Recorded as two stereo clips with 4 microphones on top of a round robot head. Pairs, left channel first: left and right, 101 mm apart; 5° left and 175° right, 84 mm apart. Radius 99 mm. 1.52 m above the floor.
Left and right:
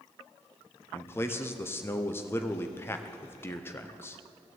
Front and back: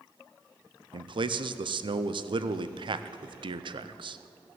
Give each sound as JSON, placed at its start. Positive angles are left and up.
{"t": 0.9, "sound": "a man speaking", "azimuth_deg": 160, "distance_m": 0.7}